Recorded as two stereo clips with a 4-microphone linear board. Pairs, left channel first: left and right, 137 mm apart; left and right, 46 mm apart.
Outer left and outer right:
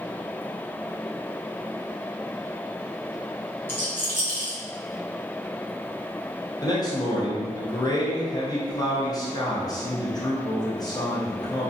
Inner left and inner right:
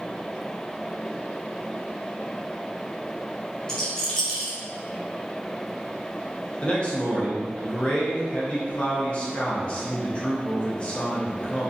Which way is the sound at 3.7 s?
15° left (ahead or behind).